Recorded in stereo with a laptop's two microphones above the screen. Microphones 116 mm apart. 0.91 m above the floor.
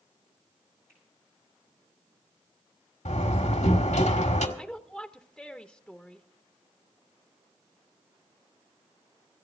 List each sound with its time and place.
0.9 s a finger snap: 25° right (ahead or behind), 8 m
3.0 s a door slam: 85° left, 1.6 m
4.6 s a woman speaking: 5° left (ahead or behind), 0.9 m